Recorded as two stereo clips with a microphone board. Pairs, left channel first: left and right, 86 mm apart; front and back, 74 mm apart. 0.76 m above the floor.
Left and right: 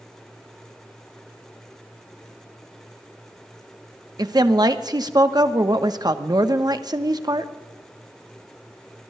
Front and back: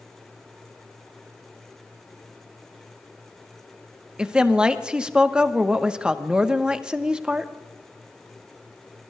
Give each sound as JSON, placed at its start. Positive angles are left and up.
{"t": 4.2, "sound": "a woman speaking", "azimuth_deg": -105, "distance_m": 1.0}